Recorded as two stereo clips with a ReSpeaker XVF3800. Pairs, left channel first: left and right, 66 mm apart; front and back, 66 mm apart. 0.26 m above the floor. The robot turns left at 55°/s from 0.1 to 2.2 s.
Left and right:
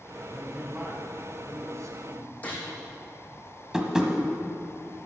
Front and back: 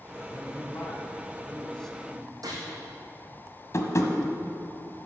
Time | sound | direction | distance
0.2 | a man speaking | 10° left | 2 m
2.4 | a gunshot | 160° left | 4 m
3.7 | tapping | 10° right | 1.3 m